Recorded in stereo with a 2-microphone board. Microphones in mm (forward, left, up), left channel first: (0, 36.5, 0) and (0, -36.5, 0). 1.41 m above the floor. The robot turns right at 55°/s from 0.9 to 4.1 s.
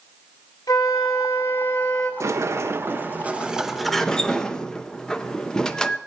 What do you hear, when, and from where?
0.7 s a flute: 110° left, 1.8 m; by 2.1 s 175° left, 1.8 m
2.2 s a sliding door: 90° right, 0.7 m; by 6.0 s 15° left, 0.7 m